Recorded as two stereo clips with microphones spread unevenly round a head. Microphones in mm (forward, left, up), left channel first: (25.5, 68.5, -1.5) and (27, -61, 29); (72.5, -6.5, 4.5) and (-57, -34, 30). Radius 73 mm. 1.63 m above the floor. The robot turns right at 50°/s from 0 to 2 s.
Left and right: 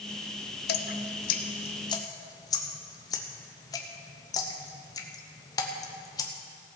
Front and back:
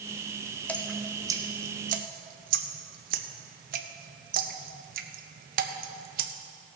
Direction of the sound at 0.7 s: 95° left.